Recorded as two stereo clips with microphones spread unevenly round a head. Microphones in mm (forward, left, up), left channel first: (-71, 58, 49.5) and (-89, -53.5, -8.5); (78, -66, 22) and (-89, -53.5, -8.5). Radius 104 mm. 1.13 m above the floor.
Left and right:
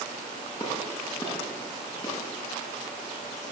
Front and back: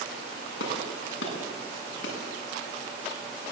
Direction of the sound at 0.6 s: 10° left.